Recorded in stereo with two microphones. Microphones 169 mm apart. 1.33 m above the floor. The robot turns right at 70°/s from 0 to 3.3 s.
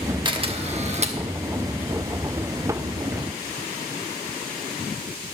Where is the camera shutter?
135° right, 1.0 m; by 1.2 s 70° right, 1.0 m.